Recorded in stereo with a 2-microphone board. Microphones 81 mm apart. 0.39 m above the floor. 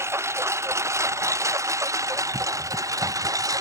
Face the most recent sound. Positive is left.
turn(degrees=-45)  # may be behind; listen again after turning